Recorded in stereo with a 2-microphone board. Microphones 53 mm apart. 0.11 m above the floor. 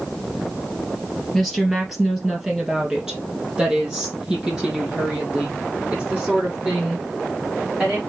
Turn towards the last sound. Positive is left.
turn(degrees=-25)  # may be behind; listen again after turning